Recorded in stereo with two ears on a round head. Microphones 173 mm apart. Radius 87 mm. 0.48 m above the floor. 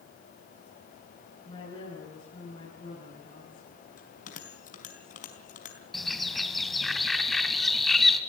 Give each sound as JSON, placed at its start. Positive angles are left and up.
{"t": 1.4, "sound": "a woman speaking", "side_deg": 25, "distance_m": 8.0}
{"t": 4.0, "sound": "a bell", "side_deg": 45, "distance_m": 4.5}
{"t": 5.9, "sound": "a bird", "side_deg": 0, "distance_m": 1.6}